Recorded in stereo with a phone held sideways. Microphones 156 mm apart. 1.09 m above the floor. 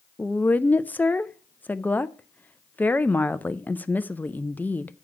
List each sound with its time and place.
0.2 s a woman speaking: 10° left (ahead or behind), 0.5 m